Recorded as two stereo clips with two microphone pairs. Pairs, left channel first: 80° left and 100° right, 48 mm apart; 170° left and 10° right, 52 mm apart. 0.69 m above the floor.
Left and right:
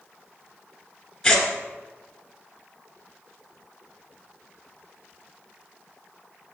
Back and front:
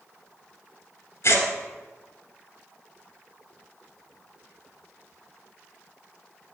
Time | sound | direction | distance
1.2 | tearing paper | 160° left | 1.9 m